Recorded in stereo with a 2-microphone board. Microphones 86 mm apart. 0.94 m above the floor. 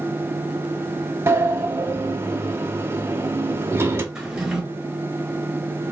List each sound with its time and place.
1.3 s a sliding door: 30° right (ahead or behind), 0.5 m
4.2 s a drawer: 10° right (ahead or behind), 1.0 m